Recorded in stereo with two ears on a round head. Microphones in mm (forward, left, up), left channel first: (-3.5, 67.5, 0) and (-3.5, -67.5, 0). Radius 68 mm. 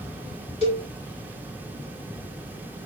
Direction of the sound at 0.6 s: 45° left (ahead or behind).